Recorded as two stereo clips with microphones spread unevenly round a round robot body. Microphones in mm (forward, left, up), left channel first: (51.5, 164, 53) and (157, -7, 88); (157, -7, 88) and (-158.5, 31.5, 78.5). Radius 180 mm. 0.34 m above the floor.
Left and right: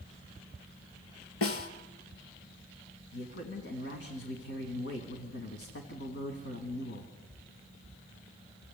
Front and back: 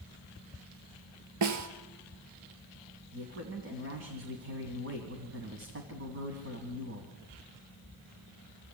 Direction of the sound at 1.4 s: 135° left.